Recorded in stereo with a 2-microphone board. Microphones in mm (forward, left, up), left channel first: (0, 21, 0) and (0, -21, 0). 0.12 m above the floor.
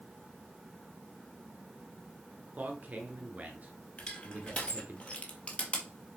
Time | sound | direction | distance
2.6 | a man speaking | 40° right (ahead or behind) | 1.8 m
4.0 | crushing | 35° left (ahead or behind) | 1.8 m